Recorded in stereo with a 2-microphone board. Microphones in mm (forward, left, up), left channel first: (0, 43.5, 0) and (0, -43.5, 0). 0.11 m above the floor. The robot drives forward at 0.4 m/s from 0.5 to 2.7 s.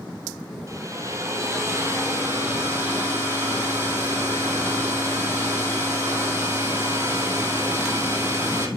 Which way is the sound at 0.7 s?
40° right (ahead or behind).